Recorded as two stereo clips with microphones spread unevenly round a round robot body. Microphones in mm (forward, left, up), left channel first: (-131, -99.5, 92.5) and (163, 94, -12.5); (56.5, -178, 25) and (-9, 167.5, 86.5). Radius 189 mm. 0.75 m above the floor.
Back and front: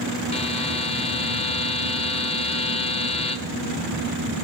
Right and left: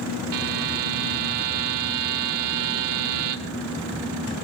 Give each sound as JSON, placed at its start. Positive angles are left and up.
{"t": 0.3, "sound": "a buzzer", "azimuth_deg": 140, "distance_m": 1.3}